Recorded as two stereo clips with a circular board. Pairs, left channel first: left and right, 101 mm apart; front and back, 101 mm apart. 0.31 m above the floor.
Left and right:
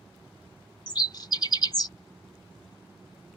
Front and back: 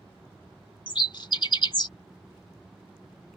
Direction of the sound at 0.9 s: 45° left.